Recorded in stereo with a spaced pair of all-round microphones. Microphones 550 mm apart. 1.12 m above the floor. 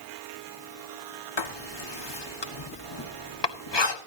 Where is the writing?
50° left (ahead or behind), 1.3 m.